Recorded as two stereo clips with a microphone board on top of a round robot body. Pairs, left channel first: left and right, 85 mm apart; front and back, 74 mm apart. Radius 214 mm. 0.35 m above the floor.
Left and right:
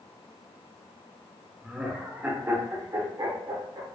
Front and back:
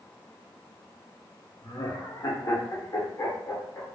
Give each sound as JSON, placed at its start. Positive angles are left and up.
{"t": 1.6, "sound": "laughter", "azimuth_deg": -5, "distance_m": 1.2}